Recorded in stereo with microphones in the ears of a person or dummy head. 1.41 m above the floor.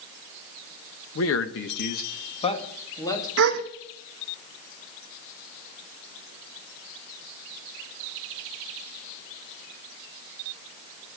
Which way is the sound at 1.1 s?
80° left.